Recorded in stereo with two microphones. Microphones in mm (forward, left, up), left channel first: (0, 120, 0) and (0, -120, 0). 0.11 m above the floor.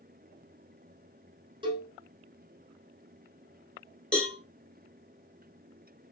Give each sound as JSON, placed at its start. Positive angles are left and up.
{"t": 1.6, "sound": "a cowbell", "side_deg": -20, "distance_m": 0.9}
{"t": 4.1, "sound": "a cowbell", "side_deg": 5, "distance_m": 1.1}